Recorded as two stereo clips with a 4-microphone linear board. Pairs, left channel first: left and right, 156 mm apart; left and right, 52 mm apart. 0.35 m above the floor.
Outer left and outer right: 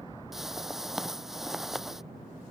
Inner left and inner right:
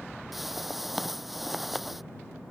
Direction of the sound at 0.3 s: Centre (ahead or behind).